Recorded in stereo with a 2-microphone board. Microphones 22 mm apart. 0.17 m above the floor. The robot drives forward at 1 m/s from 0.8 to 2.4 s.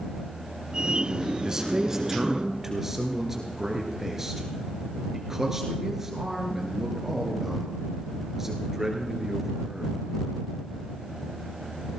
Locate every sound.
1.4 s a man speaking: 25° right (ahead or behind), 1.6 m; by 10.1 s 20° right (ahead or behind), 2.5 m